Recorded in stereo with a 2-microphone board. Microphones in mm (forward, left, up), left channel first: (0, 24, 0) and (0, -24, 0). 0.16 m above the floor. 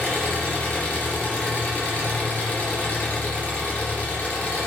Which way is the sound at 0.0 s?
30° left (ahead or behind).